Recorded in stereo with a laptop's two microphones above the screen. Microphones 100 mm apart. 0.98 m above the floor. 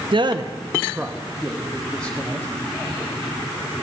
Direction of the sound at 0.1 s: 55° right (ahead or behind).